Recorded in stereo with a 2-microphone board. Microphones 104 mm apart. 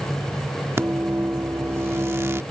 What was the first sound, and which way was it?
A microwave, 25° right (ahead or behind).